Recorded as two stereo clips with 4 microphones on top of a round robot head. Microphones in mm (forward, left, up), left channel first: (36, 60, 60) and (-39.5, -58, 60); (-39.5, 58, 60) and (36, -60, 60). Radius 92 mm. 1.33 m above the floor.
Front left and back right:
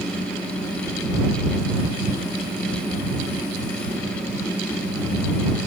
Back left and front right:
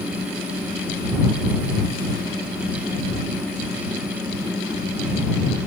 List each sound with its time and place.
Only background noise.